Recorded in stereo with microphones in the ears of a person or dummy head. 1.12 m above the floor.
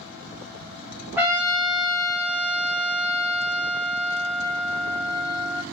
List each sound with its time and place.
1.2 s a trumpet: 10° right (ahead or behind), 0.6 m